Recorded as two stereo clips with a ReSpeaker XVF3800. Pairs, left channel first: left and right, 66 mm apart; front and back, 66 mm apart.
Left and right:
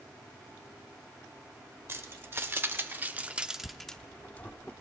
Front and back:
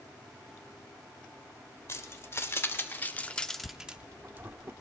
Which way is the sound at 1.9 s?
45° right.